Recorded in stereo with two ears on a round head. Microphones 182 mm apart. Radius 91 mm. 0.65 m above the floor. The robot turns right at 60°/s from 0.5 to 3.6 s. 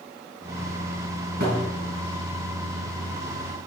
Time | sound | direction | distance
1.4 | a thud | 50° right (ahead or behind) | 3 m